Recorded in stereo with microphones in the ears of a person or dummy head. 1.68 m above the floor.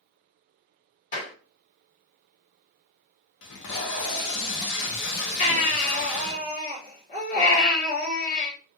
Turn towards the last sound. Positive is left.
turn(degrees=40)  # may be behind; listen again after turning